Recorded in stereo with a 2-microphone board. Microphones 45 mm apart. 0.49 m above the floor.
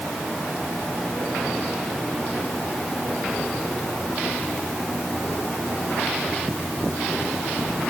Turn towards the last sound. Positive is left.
No sound to turn to.